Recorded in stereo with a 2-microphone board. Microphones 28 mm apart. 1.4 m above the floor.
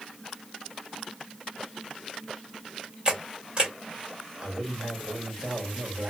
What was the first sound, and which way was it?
A camera shutter, 35° right (ahead or behind).